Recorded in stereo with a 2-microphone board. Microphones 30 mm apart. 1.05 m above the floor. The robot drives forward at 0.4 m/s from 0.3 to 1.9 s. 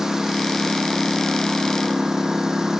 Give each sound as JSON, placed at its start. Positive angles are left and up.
{"t": 0.0, "sound": "a lawn mower", "side_deg": -15}